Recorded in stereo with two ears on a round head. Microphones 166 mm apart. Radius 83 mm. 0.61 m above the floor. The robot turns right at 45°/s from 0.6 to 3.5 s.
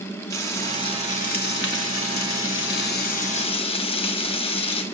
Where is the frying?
15° left, 1.9 m; by 4.8 s 145° left, 1.9 m.